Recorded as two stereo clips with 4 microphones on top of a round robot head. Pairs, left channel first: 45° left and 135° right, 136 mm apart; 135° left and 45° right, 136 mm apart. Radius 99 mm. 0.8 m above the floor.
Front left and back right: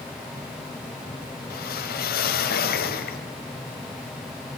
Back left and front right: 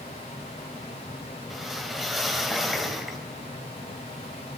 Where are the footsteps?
I don't hear footsteps.